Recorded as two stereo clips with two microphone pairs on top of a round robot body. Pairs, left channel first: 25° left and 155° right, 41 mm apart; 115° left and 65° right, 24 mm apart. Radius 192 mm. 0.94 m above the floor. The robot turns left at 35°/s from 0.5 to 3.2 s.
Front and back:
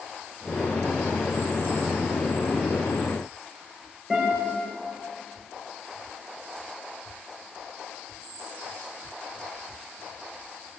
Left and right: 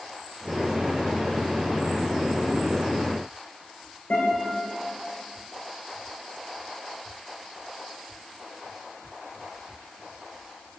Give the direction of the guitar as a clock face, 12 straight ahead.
8 o'clock.